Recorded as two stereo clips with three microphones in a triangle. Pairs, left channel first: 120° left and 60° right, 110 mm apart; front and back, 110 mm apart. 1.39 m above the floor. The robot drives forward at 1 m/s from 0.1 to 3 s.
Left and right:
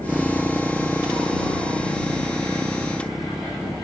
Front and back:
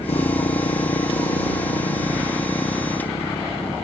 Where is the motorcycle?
20° left; by 3.9 s 25° left.